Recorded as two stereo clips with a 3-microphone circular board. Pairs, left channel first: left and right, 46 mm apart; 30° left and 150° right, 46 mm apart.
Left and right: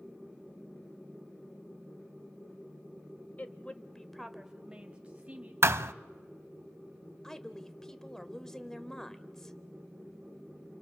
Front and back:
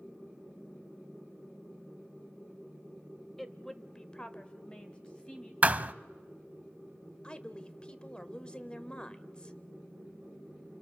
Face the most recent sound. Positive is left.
turn(degrees=30)